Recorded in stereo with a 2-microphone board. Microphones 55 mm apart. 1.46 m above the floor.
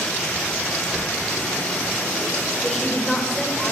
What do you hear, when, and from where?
0.9 s a sliding door: 20° right (ahead or behind), 6 m
2.6 s a woman speaking: 10° left (ahead or behind), 5 m